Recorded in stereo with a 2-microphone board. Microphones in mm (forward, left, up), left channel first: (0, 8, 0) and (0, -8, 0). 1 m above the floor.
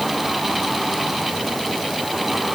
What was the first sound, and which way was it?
Only background noise.